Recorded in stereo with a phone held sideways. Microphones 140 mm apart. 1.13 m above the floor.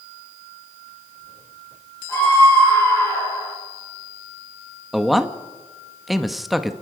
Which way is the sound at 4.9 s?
Centre (ahead or behind).